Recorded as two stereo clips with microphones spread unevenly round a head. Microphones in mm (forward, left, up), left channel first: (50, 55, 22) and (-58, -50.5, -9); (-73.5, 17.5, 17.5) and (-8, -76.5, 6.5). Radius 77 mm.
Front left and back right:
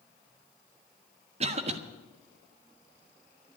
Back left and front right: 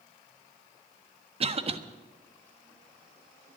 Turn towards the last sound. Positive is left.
turn(degrees=-90)